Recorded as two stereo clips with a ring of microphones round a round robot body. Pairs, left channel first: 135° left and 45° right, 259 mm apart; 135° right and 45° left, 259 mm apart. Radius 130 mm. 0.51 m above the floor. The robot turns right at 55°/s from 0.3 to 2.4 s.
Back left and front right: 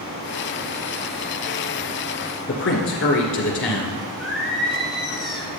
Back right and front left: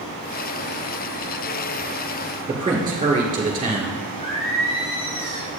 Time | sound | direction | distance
2.5 | a man speaking | 115° left | 1.9 m
4.2 | singing | 135° right | 2.5 m